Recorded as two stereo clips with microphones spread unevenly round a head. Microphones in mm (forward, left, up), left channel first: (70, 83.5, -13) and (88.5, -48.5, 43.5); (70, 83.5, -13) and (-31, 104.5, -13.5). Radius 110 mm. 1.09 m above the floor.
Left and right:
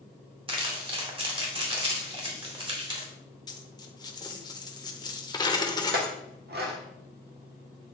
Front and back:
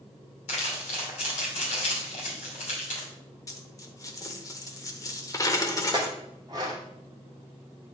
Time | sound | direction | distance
0.5 | crumpling | 35° right | 2.5 m
3.5 | a dropped coin | 20° left | 0.9 m
5.9 | a clink | 120° right | 0.8 m